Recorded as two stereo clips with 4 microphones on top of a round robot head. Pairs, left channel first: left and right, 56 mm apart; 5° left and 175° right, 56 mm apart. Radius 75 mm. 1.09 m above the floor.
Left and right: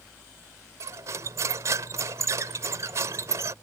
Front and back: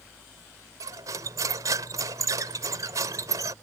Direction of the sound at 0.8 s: 140° right.